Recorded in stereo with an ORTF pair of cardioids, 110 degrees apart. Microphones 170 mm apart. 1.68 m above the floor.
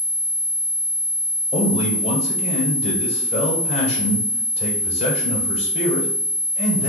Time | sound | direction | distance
1.5 | a man speaking | 35° left | 1.4 m